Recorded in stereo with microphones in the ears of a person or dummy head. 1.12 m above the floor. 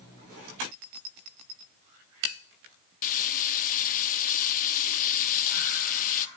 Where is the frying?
50° left (ahead or behind), 1.1 m.